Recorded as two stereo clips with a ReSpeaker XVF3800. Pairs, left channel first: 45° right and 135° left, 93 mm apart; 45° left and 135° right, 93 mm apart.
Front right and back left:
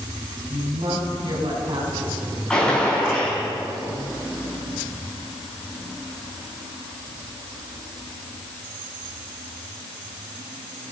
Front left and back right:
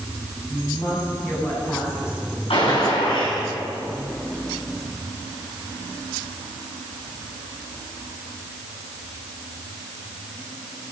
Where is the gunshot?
35° left, 10 m.